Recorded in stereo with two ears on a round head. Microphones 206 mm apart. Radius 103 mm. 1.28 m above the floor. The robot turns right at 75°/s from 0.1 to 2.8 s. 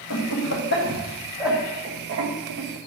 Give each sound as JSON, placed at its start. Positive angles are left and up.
{"t": 0.1, "sound": "laughter", "side_deg": 75, "distance_m": 1.1}